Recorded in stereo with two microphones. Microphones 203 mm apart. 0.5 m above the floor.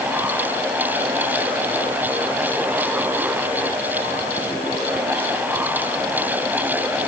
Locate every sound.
Only background noise.